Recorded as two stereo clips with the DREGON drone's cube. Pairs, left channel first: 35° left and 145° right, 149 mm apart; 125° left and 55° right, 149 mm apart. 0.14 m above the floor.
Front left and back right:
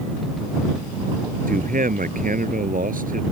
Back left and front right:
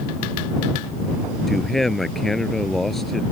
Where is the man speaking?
145° right.